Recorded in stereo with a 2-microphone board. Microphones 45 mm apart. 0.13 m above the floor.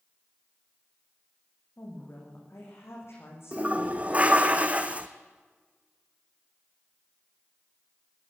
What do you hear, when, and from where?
1.8 s a woman speaking: 70° left (ahead or behind), 8.5 m
3.5 s a toilet flushing: 30° right (ahead or behind), 1.3 m